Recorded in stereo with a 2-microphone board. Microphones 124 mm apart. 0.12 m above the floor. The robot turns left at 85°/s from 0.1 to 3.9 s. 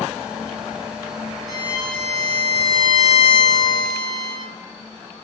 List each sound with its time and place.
1.5 s a violin: 150° right, 0.9 m; by 4.5 s 5° left, 0.9 m